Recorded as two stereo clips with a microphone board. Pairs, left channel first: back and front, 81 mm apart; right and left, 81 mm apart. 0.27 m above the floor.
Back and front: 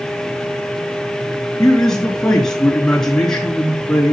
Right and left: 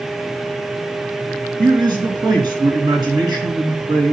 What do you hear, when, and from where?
1.6 s a man speaking: 95° left, 4.5 m